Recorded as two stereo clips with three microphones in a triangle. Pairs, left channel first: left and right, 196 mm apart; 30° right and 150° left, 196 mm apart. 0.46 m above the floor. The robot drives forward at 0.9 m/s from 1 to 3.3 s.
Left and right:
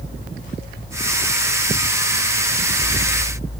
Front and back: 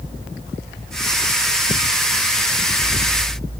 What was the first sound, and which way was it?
Only background noise.